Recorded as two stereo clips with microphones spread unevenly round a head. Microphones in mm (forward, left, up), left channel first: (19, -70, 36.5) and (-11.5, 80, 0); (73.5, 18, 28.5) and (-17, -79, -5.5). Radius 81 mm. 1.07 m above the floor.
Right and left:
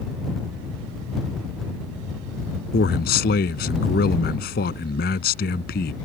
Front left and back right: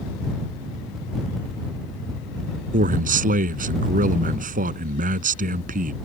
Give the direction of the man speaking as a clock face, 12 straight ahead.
4 o'clock.